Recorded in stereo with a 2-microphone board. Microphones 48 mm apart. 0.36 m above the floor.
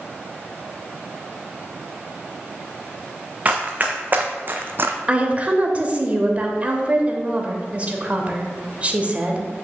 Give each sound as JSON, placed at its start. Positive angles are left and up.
{"t": 3.5, "sound": "running footsteps", "side_deg": -30, "distance_m": 1.3}
{"t": 5.1, "sound": "a woman speaking", "side_deg": -30, "distance_m": 1.0}